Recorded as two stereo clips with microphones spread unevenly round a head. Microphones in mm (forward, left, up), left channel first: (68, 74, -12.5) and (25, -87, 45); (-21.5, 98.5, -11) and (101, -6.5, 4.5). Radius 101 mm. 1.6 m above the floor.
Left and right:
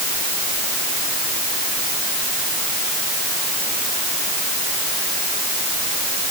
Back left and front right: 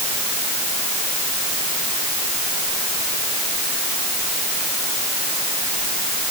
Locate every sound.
Only background noise.